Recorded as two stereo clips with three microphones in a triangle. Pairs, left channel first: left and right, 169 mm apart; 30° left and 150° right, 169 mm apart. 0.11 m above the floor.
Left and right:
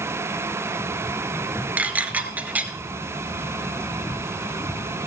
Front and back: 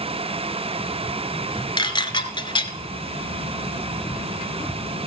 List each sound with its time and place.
1.8 s dishes clattering: 15° right, 1.0 m